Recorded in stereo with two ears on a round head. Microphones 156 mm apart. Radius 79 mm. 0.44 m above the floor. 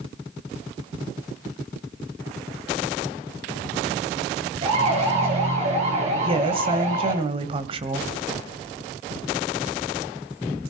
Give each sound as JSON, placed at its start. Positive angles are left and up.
{"t": 4.6, "sound": "a siren", "side_deg": -35, "distance_m": 9.5}
{"t": 6.2, "sound": "a woman speaking", "side_deg": -30, "distance_m": 1.8}